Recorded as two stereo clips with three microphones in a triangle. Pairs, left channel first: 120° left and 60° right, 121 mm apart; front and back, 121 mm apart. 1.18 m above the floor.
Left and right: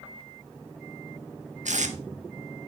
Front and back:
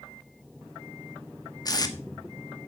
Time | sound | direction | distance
1.6 | tape being pulled | 55° right | 1.2 m